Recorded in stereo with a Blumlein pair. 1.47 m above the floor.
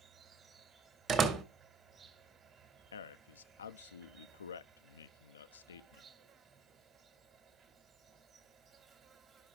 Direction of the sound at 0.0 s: 20° right.